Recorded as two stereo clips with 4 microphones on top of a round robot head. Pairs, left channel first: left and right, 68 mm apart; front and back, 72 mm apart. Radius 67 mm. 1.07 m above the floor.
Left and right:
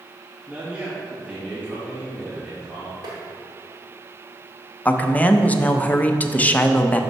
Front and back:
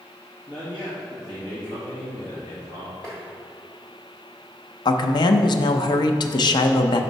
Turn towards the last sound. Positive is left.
turn(degrees=20)